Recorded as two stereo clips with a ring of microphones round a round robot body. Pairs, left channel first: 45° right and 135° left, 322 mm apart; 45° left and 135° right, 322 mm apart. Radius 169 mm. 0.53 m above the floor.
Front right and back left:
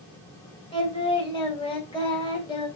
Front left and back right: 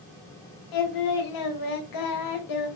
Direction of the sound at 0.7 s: 30° left.